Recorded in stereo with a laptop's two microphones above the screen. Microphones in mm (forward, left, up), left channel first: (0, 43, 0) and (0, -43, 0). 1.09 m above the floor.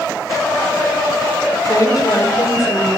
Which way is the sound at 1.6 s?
45° left (ahead or behind).